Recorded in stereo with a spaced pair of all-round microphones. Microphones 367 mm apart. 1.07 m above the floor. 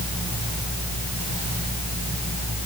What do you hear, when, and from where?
Only background noise.